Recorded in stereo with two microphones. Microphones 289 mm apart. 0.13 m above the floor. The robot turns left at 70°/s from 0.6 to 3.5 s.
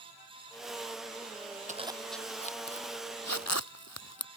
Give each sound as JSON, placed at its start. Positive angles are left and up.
{"t": 1.7, "sound": "a zipper", "side_deg": -30}